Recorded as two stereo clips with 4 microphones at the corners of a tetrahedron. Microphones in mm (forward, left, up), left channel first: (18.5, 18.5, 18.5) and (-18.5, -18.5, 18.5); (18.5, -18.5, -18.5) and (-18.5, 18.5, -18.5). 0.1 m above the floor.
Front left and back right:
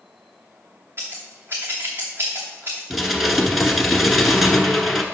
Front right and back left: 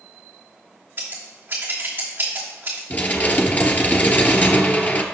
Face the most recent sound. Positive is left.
turn(degrees=-50)